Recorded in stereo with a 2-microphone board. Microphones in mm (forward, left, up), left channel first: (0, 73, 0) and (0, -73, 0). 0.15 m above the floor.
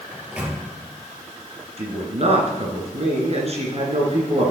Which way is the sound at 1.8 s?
50° right (ahead or behind).